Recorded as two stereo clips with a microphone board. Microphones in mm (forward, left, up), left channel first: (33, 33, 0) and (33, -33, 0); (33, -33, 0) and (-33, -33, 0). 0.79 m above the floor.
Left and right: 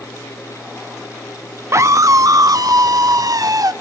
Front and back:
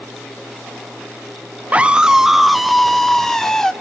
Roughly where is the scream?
Behind right.